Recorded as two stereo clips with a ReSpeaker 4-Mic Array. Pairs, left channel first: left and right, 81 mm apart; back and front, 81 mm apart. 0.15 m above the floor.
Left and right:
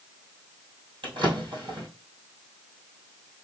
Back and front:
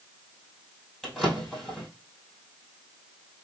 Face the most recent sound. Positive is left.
turn(degrees=-95)